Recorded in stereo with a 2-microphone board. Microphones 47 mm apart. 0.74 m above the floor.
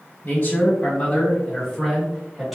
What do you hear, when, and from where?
0.2 s a man speaking: 40° left (ahead or behind), 1.3 m; by 2.5 s centre (ahead or behind), 1.5 m